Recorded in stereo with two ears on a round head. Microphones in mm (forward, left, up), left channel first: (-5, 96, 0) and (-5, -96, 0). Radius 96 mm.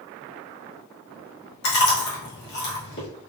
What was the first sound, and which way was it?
Chewing, 50° left (ahead or behind).